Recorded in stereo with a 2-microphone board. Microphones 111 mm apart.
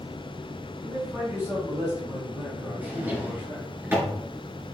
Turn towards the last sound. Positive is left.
turn(degrees=-20)  # may be behind; listen again after turning